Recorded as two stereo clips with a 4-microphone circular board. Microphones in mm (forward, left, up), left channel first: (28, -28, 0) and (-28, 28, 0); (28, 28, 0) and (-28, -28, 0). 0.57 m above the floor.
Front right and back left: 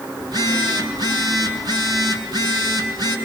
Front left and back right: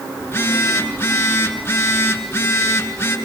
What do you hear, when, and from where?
0.2 s a phone buzzing: 110° left, 5.5 m